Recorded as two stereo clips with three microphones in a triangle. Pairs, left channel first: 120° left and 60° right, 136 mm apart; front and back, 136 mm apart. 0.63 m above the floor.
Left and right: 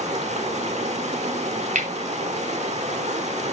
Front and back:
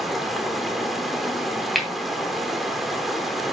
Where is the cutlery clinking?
90° right, 2.5 m.